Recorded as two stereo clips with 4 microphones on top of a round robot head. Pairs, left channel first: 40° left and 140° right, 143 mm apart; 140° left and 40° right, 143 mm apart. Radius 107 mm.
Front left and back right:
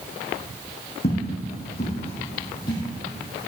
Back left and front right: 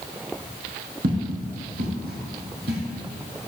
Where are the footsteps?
10° right, 5.5 m; by 2.8 s 25° right, 4 m.